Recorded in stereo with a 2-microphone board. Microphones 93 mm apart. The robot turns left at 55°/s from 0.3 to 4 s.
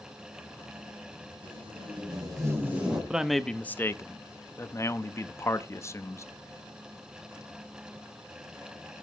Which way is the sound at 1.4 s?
90° right.